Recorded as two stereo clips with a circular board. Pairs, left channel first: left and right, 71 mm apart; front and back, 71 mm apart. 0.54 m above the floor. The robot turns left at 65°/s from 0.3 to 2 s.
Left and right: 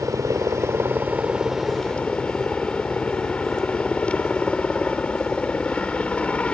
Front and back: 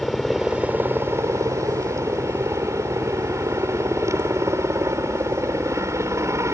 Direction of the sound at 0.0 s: 95° right.